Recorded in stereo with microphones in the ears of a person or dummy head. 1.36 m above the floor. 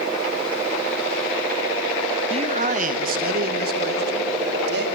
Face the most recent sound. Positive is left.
turn(degrees=-65)  # may be behind; listen again after turning